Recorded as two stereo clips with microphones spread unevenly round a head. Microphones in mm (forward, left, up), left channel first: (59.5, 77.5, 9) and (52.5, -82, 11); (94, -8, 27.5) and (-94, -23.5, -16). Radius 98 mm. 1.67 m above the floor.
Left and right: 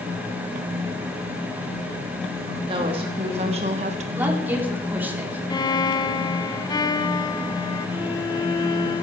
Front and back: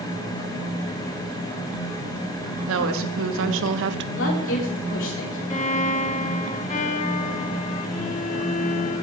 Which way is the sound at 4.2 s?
15° right.